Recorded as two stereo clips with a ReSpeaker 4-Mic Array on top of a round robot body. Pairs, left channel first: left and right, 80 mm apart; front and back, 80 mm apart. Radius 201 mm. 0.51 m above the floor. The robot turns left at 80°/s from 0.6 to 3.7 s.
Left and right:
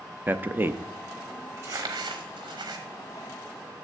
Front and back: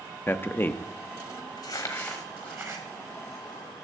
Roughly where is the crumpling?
Ahead right.